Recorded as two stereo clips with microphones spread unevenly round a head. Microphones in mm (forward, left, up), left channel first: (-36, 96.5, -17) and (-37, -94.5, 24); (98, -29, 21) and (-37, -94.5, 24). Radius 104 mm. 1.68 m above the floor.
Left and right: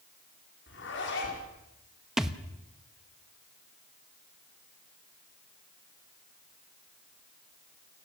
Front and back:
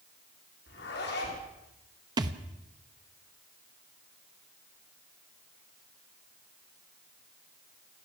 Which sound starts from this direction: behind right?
A thud, at 2.2 s.